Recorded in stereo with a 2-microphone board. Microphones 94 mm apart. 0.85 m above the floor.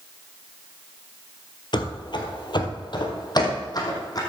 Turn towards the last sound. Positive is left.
turn(degrees=40)  # may be behind; listen again after turning